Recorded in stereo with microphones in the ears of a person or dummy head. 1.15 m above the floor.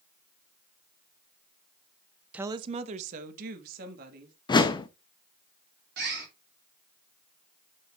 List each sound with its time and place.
2.3 s a woman speaking: 5° right (ahead or behind), 0.5 m; by 4.3 s 55° right (ahead or behind), 2 m
4.5 s a whoosh: 20° left (ahead or behind), 0.7 m
6.0 s a bird: 60° right (ahead or behind), 2.5 m